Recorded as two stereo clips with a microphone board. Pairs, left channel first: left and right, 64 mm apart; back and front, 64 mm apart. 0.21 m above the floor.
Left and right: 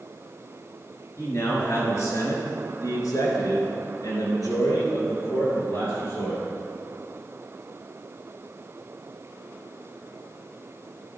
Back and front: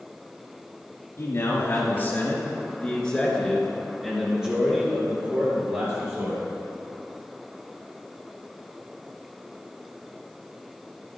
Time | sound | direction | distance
1.2 | a man speaking | 135° left | 3 m